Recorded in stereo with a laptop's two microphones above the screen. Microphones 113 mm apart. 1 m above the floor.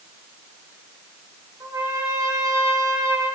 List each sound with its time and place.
1.6 s a trumpet: 35° right (ahead or behind), 4 m